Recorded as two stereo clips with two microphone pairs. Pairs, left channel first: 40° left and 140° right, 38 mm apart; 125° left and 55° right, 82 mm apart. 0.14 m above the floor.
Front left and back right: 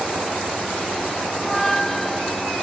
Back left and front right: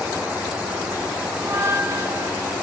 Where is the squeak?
35° right, 0.9 m.